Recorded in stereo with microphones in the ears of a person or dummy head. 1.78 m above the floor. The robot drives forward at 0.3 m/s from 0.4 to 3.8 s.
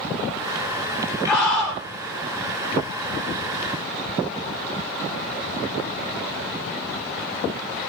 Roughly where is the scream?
Centre.